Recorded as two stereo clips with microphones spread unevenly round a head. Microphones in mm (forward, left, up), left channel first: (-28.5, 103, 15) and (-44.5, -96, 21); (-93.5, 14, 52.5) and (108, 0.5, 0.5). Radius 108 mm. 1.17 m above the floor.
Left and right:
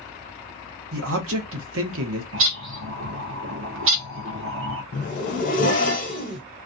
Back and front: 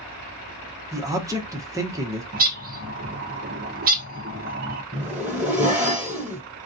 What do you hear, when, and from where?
0.9 s a man speaking: 75° right, 0.9 m
2.3 s a bird: 55° right, 0.7 m
4.9 s a zipper: 90° left, 1.0 m